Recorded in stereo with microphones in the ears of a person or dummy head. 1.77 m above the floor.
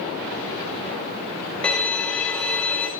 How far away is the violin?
About 2.5 m.